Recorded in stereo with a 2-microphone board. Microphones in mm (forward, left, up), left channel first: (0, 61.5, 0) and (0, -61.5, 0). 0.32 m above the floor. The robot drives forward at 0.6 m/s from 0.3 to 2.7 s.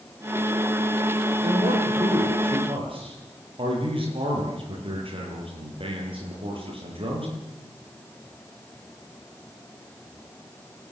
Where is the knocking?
I don't hear knocking.